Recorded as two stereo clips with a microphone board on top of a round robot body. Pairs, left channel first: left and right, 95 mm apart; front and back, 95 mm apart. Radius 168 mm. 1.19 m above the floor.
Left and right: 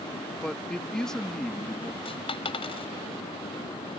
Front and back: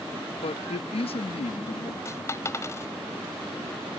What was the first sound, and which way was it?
A man speaking, 5° left.